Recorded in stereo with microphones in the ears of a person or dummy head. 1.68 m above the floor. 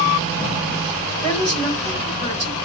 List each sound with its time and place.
1.2 s a woman speaking: 20° left (ahead or behind), 3.5 m